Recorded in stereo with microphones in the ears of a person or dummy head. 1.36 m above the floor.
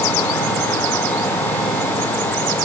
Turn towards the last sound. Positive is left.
No sound to turn to.